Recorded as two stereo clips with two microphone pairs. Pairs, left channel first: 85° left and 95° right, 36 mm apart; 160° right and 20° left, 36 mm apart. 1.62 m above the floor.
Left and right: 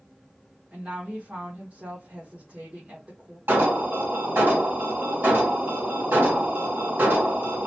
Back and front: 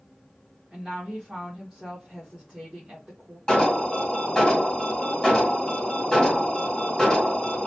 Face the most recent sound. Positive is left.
turn(degrees=-80)